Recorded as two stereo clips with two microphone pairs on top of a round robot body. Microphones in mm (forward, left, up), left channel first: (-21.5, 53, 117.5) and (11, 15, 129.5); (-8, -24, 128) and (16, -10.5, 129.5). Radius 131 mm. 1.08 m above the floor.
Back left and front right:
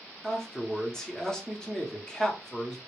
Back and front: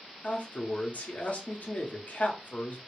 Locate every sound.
0.2 s a man speaking: 160° right, 0.9 m